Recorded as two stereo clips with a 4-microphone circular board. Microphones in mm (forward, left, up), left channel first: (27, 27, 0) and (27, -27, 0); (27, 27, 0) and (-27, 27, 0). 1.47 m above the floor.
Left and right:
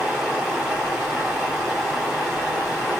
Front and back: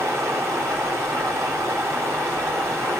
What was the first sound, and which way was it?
Running water, 170° right.